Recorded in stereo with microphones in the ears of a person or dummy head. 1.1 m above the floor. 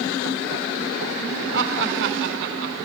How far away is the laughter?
About 4 m.